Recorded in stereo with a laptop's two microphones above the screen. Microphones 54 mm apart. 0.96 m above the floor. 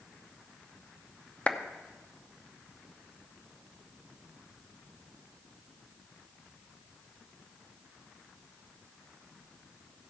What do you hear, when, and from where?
1.5 s a clap: 25° left (ahead or behind), 0.8 m